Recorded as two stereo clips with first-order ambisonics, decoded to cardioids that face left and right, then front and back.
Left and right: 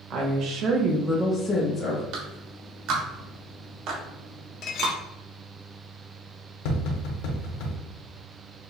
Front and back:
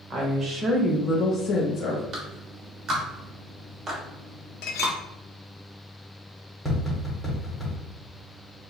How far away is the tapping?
About 1.3 m.